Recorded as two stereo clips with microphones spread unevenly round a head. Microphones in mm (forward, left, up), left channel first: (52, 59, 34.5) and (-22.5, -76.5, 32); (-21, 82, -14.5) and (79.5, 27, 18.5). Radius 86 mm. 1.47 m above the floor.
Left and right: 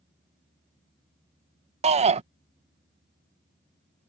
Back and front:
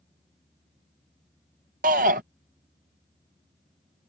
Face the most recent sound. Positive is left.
turn(degrees=-70)